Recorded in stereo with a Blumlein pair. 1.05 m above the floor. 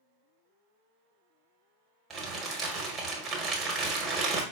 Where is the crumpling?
25° right, 1.1 m.